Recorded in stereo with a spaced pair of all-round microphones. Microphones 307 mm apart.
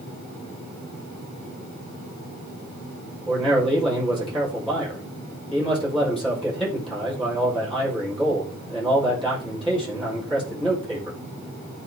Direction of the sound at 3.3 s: 5° left (ahead or behind).